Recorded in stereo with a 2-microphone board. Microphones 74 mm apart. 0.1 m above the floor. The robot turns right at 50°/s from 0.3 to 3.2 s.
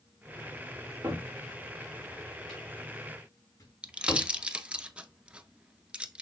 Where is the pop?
15° right (ahead or behind), 0.6 m.